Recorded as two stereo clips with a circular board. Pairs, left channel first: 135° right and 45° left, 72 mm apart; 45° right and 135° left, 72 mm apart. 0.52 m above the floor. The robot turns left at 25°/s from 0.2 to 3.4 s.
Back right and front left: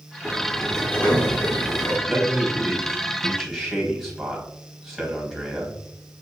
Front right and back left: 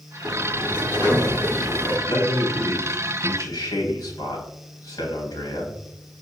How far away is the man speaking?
About 3 m.